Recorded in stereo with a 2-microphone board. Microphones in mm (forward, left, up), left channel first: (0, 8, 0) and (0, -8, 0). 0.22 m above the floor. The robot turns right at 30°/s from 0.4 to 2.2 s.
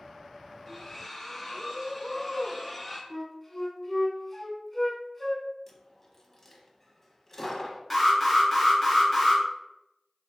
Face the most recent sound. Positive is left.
turn(degrees=5)  # may be behind; listen again after turning